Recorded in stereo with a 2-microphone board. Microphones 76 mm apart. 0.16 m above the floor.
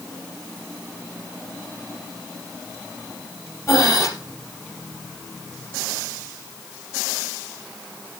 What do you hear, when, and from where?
3.7 s breathing: 40° left (ahead or behind), 3 m